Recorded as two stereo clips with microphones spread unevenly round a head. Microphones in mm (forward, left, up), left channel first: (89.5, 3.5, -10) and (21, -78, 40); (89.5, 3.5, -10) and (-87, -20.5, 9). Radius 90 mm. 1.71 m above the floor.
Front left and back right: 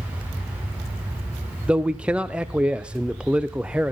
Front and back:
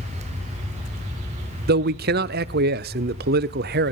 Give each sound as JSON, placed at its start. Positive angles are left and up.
{"t": 1.7, "sound": "a man speaking", "azimuth_deg": 150, "distance_m": 0.6}